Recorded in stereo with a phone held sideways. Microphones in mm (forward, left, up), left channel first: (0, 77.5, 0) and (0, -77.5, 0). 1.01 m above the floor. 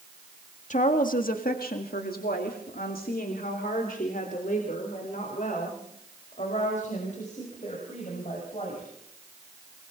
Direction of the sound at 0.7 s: 55° left (ahead or behind).